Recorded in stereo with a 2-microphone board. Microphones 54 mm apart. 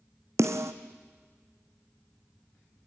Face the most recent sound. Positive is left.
turn(degrees=-65)  # may be behind; listen again after turning